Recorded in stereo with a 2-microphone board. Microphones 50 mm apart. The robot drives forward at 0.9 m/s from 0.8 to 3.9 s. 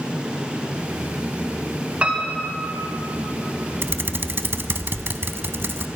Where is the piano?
25° right (ahead or behind), 1.6 m.